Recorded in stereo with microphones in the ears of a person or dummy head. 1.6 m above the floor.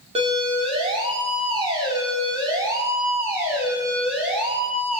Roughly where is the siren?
Right.